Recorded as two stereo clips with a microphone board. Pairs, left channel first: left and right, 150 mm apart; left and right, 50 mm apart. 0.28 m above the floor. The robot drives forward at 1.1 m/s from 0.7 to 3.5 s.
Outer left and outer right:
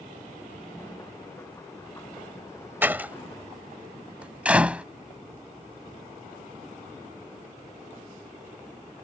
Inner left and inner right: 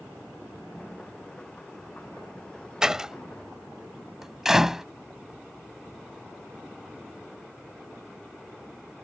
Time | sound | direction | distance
2.8 | a door slam | 15° right (ahead or behind) | ?